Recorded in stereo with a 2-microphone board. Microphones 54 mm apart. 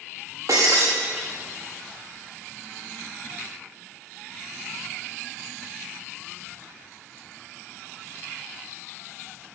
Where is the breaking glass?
90° right, 4.5 m.